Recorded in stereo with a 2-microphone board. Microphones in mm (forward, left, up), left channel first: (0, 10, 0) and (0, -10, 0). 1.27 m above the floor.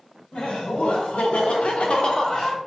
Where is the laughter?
65° left (ahead or behind), 1.1 m; by 2.6 s 30° left (ahead or behind), 0.8 m.